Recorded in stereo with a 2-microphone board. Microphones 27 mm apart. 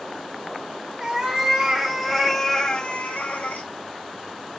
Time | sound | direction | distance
1.0 | a cat meowing | 20° right (ahead or behind) | 1.2 m